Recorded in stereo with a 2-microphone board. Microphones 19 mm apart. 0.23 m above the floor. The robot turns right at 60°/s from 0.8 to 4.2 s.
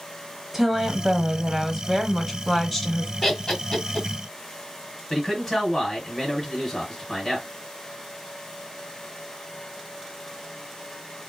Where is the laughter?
25° left (ahead or behind), 1.3 m; by 4.1 s 30° left (ahead or behind), 1.3 m.